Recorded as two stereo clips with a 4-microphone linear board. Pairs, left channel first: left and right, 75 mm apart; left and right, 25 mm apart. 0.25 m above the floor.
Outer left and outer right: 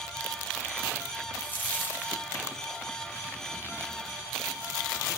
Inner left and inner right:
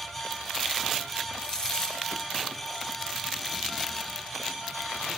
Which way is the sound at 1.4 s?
25° left (ahead or behind).